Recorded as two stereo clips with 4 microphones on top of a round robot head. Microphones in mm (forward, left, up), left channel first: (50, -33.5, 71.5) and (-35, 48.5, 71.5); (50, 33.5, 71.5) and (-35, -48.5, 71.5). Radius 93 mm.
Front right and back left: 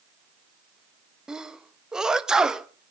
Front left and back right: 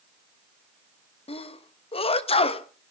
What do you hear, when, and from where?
1.3 s a sneeze: 50° left, 1.4 m